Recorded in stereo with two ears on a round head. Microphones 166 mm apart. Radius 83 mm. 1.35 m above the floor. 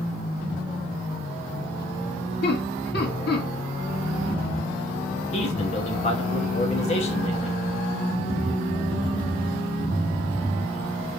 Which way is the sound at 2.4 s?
60° left (ahead or behind).